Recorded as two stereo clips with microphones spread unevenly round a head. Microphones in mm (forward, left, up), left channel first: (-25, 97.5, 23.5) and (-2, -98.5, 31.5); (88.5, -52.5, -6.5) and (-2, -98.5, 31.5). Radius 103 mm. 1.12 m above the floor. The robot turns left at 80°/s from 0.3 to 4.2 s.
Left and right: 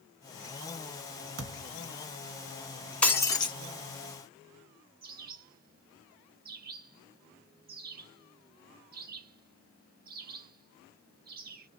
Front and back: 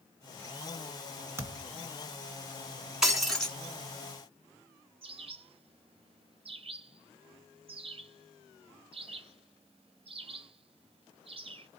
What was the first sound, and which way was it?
A thud, 100° right.